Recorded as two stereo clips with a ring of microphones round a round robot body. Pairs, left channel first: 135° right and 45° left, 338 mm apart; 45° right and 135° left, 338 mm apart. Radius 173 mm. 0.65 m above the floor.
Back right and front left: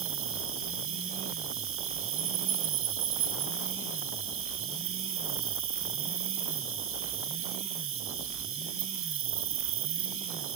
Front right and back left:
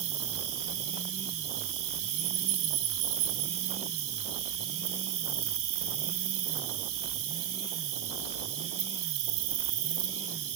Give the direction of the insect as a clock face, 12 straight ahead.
9 o'clock.